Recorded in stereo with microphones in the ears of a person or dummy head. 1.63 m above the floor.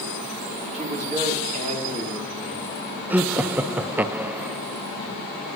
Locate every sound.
0.7 s a man speaking: 40° right (ahead or behind), 3.5 m
3.1 s laughter: 10° right (ahead or behind), 0.5 m